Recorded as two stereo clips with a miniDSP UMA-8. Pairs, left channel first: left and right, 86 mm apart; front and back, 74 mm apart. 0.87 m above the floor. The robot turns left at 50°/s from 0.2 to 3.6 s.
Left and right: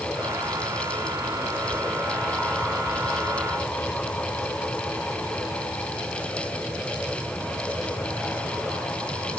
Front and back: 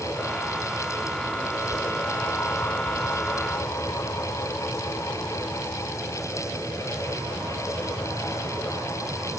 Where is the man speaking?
I don't hear a man speaking.